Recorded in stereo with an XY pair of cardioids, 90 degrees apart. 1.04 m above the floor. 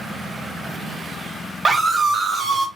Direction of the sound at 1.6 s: 50° right.